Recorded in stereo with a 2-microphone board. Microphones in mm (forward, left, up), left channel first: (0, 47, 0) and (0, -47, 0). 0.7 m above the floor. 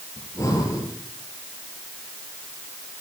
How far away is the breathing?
About 4 m.